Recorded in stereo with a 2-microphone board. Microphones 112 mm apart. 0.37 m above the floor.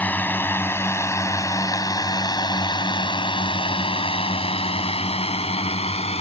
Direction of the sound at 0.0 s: 15° left (ahead or behind).